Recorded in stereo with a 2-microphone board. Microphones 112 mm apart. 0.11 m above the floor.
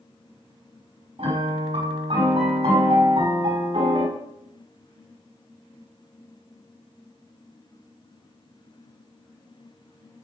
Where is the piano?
75° right (ahead or behind), 5.5 m.